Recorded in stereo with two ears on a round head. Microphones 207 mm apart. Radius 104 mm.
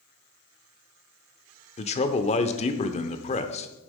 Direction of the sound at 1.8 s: 30° left (ahead or behind).